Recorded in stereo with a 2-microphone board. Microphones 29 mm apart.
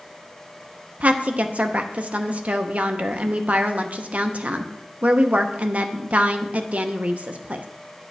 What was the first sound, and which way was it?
A woman speaking, 50° right (ahead or behind).